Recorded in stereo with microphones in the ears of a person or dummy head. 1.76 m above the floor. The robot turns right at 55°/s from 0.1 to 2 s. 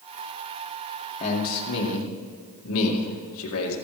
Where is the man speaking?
40° left, 2 m; by 3.8 s 85° left, 2 m.